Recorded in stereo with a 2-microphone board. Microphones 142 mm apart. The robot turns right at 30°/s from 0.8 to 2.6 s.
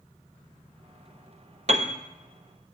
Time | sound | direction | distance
1.7 | a piano | 55° right (ahead or behind) | 0.8 m